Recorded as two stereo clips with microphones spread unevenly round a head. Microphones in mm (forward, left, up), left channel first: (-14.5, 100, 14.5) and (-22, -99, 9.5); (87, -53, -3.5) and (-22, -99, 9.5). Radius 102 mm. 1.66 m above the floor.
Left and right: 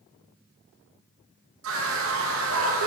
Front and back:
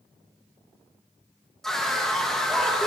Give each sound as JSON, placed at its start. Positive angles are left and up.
{"t": 1.6, "sound": "a scream", "azimuth_deg": -65, "distance_m": 2.5}